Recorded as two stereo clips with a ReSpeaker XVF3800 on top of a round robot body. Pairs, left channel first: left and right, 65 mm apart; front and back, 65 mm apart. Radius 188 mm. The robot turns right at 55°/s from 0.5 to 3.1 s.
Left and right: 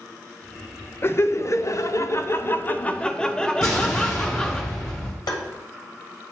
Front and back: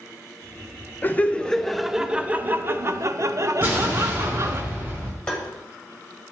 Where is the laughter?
50° left, 0.9 m; by 4.6 s 160° left, 0.9 m.